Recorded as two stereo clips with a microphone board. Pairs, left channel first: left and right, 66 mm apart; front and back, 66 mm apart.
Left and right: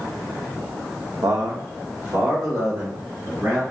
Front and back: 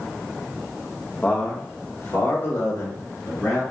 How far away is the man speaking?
About 0.6 m.